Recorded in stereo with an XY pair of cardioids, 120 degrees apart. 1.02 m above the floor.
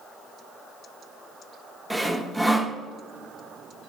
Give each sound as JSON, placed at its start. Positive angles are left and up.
{"t": 1.9, "sound": "sawing", "azimuth_deg": -5, "distance_m": 0.5}